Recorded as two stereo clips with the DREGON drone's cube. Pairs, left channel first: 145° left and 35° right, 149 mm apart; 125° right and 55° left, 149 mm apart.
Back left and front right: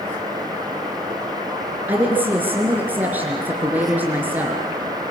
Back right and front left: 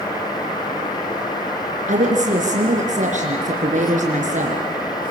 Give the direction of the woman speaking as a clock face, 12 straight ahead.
11 o'clock.